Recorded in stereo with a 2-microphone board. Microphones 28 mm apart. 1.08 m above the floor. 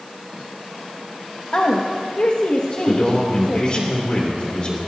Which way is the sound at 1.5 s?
65° left (ahead or behind).